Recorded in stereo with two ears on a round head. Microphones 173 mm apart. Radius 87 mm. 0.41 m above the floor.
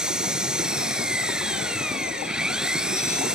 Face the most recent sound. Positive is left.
turn(degrees=-5)  # may be behind; listen again after turning